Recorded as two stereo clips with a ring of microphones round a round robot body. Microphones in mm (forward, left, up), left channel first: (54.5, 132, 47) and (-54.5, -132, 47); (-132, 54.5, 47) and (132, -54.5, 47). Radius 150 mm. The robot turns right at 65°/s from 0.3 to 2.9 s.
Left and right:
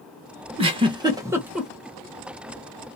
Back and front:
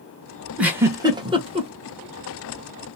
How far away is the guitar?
I don't hear a guitar.